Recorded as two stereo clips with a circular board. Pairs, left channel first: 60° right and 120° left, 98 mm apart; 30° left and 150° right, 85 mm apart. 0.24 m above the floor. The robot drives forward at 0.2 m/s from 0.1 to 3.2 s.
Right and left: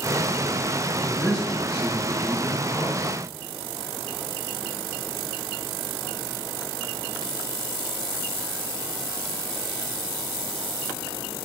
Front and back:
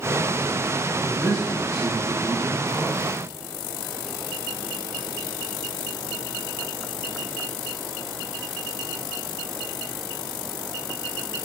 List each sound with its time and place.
1.0 s a man speaking: 170° right, 1.2 m; by 3.2 s 175° right, 1.5 m